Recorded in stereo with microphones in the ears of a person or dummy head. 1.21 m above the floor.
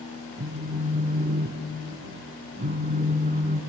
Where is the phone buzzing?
40° right (ahead or behind), 1.4 m.